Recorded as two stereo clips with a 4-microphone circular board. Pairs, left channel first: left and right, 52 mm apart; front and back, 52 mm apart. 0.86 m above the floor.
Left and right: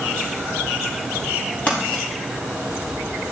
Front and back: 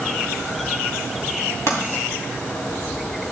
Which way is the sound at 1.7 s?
30° left.